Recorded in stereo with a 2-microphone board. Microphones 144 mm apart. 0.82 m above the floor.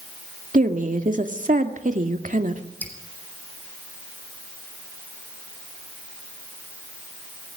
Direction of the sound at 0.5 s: 65° right (ahead or behind).